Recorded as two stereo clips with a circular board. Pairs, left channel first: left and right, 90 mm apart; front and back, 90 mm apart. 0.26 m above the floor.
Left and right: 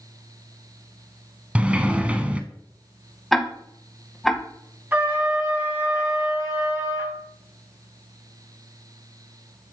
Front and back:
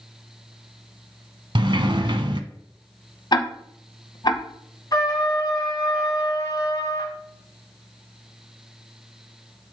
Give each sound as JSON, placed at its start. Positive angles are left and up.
{"t": 1.6, "sound": "a sliding door", "azimuth_deg": -165, "distance_m": 0.7}
{"t": 3.3, "sound": "ticking", "azimuth_deg": 0, "distance_m": 1.0}
{"t": 4.9, "sound": "a trumpet", "azimuth_deg": -30, "distance_m": 1.7}